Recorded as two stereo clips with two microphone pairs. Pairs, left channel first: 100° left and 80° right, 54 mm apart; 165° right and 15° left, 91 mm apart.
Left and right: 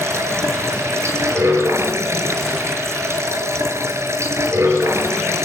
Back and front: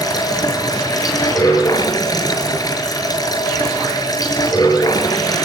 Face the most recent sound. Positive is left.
turn(degrees=-115)